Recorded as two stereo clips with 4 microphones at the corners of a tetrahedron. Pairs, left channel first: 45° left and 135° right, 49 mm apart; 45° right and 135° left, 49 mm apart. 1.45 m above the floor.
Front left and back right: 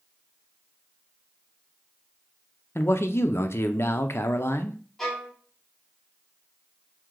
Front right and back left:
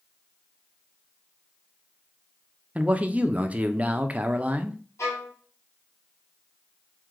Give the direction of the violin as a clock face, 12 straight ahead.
1 o'clock.